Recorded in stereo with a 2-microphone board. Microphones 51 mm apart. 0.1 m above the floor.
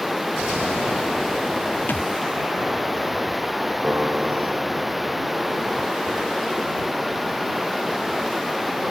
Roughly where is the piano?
Right.